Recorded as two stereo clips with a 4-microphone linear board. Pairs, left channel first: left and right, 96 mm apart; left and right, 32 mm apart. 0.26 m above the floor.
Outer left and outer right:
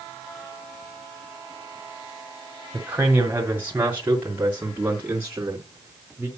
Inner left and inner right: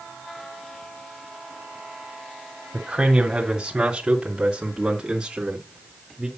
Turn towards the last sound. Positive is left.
turn(degrees=-15)  # may be behind; listen again after turning